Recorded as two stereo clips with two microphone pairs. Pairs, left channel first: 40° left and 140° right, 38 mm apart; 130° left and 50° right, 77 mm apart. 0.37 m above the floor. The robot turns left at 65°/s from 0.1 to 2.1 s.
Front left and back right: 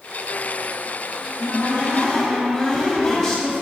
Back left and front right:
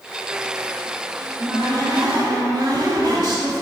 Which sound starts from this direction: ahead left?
A cupboard door, at 1.2 s.